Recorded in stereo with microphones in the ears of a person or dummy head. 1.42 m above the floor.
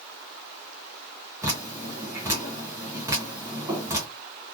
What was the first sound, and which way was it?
Dripping, 15° right (ahead or behind).